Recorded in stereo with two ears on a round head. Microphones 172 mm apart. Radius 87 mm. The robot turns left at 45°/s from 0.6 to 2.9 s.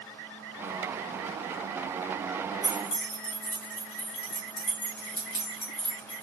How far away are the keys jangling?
About 1.5 m.